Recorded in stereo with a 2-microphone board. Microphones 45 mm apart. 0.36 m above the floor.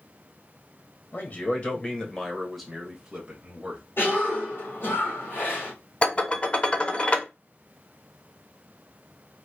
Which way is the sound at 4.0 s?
55° left (ahead or behind).